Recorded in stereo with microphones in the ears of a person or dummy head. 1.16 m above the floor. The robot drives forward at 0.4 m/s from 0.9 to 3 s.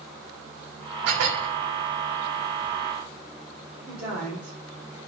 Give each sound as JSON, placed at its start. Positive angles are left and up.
{"t": 1.1, "sound": "dishes clattering", "side_deg": -75, "distance_m": 1.5}
{"t": 3.9, "sound": "a woman speaking", "side_deg": -5, "distance_m": 3.0}